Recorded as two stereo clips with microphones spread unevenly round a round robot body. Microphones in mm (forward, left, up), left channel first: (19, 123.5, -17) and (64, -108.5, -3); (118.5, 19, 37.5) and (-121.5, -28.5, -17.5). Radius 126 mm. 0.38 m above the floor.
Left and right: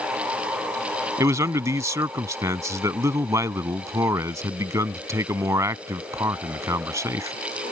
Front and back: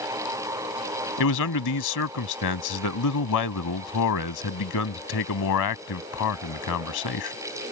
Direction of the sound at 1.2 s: Straight ahead.